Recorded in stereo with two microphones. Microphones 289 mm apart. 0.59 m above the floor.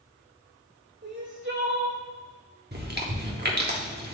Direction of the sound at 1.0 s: 45° right (ahead or behind).